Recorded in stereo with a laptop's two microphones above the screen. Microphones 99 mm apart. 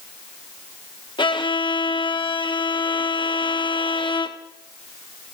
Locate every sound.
1.2 s a violin: 50° left (ahead or behind), 1.2 m